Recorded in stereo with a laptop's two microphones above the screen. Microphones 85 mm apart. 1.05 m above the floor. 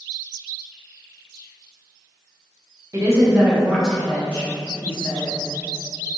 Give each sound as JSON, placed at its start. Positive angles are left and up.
{"t": 2.9, "sound": "a woman speaking", "side_deg": -40, "distance_m": 0.6}